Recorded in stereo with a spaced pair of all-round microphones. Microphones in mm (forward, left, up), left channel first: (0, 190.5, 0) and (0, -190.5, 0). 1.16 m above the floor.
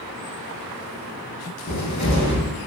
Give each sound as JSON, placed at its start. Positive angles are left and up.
{"t": 1.7, "sound": "a cupboard door", "side_deg": 45, "distance_m": 0.7}